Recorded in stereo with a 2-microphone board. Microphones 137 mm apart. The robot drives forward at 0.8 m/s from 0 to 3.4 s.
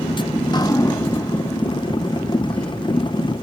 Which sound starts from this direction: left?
Dripping, at 0.4 s.